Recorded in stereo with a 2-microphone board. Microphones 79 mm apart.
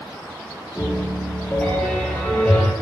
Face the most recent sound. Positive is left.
turn(degrees=20)  # may be behind; listen again after turning